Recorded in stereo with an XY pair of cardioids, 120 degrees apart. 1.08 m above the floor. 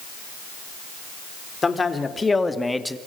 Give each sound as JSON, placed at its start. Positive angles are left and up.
{"t": 1.6, "sound": "a man speaking", "azimuth_deg": 25, "distance_m": 3.0}